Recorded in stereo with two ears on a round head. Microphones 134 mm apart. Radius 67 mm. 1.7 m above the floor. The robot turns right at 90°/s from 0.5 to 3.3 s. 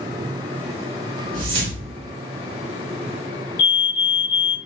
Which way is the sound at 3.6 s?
65° left (ahead or behind).